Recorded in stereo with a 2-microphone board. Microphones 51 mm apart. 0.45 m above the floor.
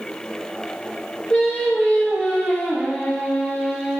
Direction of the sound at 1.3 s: 15° left (ahead or behind).